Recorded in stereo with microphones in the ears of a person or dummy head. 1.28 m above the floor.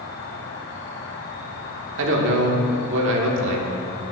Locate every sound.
0.0 s an insect: 50° left (ahead or behind), 1.2 m
2.0 s a man speaking: 75° right (ahead or behind), 1.5 m